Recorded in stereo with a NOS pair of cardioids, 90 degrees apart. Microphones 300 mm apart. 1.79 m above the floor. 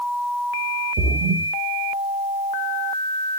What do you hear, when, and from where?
1.0 s a splash: 45° right, 0.8 m